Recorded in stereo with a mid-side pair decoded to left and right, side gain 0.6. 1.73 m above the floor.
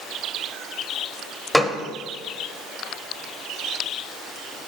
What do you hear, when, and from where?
1.5 s a gunshot: 5° left, 0.7 m